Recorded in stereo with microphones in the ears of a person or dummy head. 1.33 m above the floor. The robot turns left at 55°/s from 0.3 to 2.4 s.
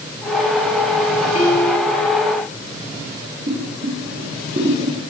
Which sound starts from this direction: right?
Boiling, at 3.5 s.